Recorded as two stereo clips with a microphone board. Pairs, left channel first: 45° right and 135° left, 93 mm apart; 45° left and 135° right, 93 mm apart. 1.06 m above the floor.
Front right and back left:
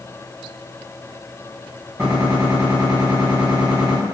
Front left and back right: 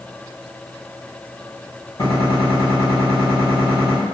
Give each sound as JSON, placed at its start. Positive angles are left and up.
{"t": 2.0, "sound": "a gunshot", "azimuth_deg": 75, "distance_m": 1.5}